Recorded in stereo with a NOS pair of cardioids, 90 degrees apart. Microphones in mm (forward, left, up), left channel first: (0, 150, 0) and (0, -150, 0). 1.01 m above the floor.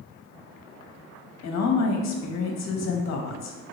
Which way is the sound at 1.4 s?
60° left.